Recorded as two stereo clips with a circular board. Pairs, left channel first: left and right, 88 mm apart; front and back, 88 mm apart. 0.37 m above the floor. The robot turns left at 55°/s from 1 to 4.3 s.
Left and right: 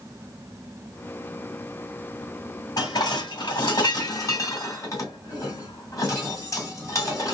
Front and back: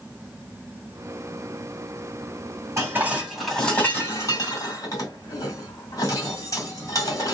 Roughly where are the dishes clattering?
Behind left.